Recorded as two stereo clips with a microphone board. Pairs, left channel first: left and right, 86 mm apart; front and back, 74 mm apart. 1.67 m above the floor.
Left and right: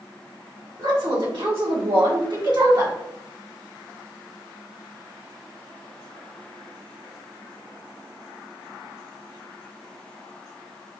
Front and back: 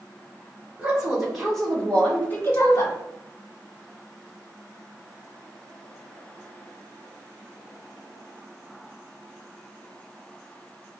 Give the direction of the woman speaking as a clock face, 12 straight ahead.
3 o'clock.